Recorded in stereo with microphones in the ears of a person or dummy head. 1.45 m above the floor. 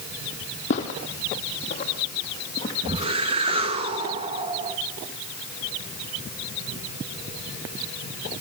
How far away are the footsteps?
About 3.5 m.